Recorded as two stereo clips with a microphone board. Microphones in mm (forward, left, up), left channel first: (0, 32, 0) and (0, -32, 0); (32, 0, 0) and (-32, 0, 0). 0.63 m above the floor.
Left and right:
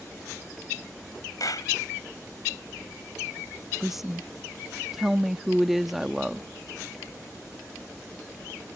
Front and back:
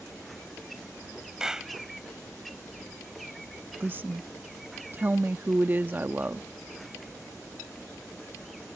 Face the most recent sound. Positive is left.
turn(degrees=-170)